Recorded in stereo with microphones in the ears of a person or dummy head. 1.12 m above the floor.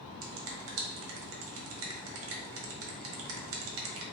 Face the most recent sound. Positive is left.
turn(degrees=-70)  # may be behind; listen again after turning